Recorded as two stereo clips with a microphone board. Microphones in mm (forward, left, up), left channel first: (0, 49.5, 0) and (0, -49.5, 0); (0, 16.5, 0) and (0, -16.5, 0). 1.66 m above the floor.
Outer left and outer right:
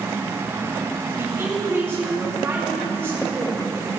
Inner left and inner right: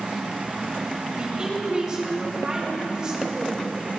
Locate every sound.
1.2 s a woman speaking: 25° right (ahead or behind), 2.5 m